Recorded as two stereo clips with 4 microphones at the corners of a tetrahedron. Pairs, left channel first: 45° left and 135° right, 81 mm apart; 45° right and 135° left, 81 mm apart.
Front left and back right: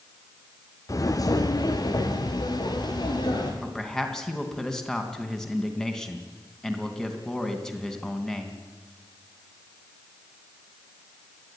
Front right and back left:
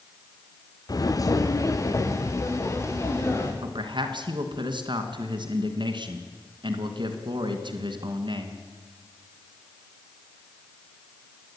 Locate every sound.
0.9 s footsteps: straight ahead, 1.2 m; by 3.5 s 10° left, 4 m
3.6 s a man speaking: 130° left, 3 m